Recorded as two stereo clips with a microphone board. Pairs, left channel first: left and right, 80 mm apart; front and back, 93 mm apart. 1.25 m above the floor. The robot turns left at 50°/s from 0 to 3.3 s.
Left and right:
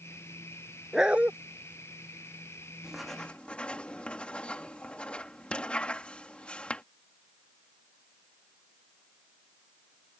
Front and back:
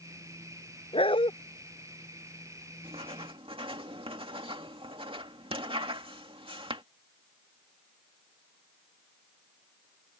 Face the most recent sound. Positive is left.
turn(degrees=165)